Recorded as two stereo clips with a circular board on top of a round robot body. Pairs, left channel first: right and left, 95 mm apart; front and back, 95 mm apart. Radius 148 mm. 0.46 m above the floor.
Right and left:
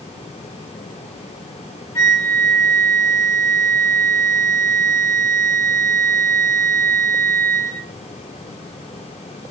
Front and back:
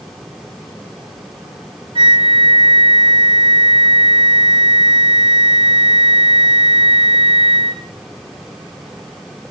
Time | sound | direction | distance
1.9 | a flute | 150° right | 4 m